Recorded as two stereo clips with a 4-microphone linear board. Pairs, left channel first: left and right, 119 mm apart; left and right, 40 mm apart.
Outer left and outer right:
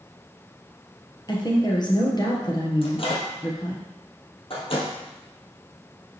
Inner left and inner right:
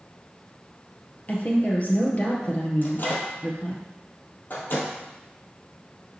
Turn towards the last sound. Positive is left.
turn(degrees=50)  # may be behind; listen again after turning